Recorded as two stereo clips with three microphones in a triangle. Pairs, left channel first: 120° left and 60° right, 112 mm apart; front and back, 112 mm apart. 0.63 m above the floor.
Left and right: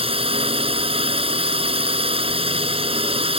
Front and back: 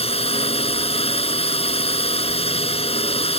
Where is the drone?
30° right.